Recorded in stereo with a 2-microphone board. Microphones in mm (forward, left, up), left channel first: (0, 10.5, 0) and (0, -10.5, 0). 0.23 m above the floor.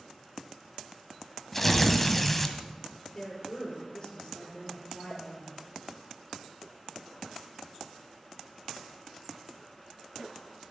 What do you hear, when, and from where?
1.5 s tearing paper: 10° left (ahead or behind), 1.5 m
3.1 s a woman speaking: 40° left (ahead or behind), 6 m
5.1 s a pop: 35° left (ahead or behind), 5 m